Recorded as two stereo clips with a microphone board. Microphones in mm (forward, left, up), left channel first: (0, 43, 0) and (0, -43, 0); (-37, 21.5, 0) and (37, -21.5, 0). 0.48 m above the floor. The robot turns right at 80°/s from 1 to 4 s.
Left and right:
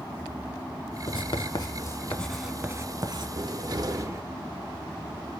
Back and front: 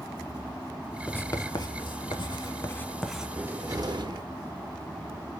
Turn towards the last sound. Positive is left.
turn(degrees=-45)